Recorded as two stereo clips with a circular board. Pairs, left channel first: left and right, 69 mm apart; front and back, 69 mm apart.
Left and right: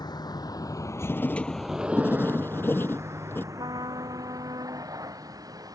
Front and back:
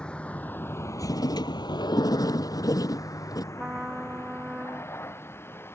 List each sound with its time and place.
0.0 s a vehicle: 75° left; by 5.8 s 60° right
1.1 s writing: 30° left
3.5 s a trumpet: 105° right